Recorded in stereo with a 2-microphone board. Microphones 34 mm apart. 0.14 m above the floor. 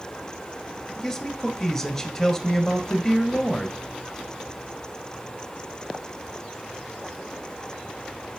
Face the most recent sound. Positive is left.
turn(degrees=10)  # may be behind; listen again after turning